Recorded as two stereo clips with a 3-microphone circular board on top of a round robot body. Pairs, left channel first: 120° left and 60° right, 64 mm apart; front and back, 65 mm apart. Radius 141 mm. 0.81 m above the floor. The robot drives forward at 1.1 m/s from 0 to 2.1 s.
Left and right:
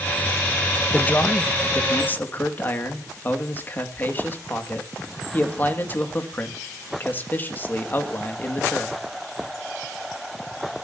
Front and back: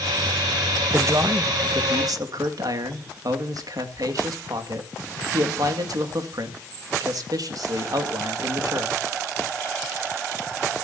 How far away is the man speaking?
About 1.2 m.